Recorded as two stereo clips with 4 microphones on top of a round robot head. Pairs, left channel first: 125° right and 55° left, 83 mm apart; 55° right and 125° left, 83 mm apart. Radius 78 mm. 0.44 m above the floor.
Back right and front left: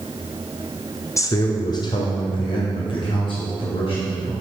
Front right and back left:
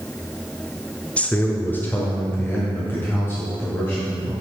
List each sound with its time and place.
1.2 s a man speaking: 120° right, 0.8 m; by 4.3 s 115° right, 3.5 m